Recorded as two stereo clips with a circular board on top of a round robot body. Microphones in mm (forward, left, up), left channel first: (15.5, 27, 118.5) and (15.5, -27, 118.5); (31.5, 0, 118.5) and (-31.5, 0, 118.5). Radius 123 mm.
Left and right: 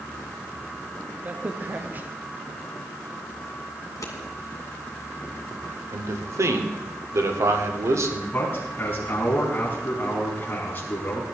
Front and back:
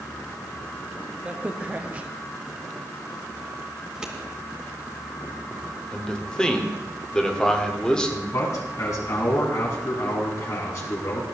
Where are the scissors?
100° left, 2.5 m.